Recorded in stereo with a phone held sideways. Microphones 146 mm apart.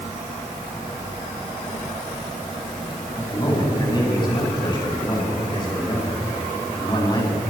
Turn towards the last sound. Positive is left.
turn(degrees=30)  # may be behind; listen again after turning